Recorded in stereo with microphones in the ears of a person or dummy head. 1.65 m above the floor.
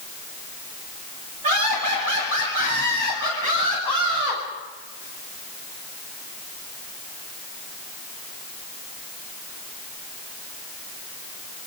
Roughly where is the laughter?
Right.